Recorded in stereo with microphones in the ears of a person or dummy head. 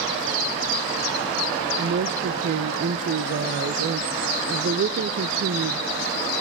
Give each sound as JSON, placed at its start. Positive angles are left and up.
{"t": 1.8, "sound": "a woman speaking", "side_deg": -45, "distance_m": 0.6}